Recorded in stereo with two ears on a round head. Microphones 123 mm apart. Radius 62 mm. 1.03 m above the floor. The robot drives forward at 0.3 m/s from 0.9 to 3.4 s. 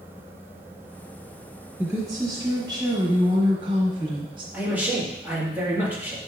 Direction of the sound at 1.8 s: 20° right (ahead or behind).